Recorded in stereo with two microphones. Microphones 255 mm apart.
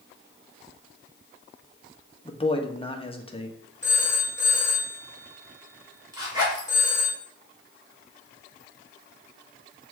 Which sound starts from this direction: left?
A man speaking, at 2.2 s.